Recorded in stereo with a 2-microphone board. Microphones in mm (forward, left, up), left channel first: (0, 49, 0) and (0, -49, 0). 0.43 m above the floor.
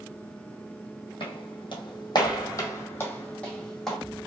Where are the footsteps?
70° left (ahead or behind), 1.0 m; by 4.0 s centre (ahead or behind), 1.2 m.